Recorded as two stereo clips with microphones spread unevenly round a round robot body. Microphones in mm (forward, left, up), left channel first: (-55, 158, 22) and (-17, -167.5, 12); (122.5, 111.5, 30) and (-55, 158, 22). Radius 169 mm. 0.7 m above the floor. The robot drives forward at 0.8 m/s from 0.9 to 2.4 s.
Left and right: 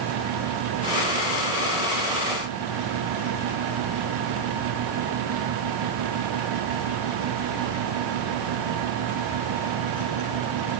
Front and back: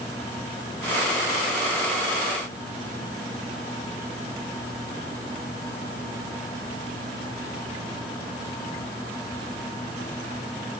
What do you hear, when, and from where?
Only background noise.